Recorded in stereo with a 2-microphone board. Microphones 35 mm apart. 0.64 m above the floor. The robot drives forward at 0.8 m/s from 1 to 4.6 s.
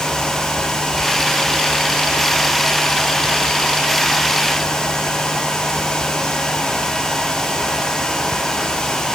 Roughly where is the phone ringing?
No phone ringing in this recording.